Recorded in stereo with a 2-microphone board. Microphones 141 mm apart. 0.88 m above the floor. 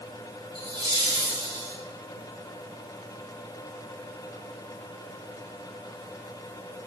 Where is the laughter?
35° right (ahead or behind), 2.5 m.